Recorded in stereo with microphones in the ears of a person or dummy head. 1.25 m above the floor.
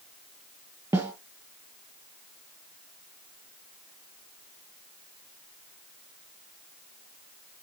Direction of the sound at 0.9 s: 10° right (ahead or behind).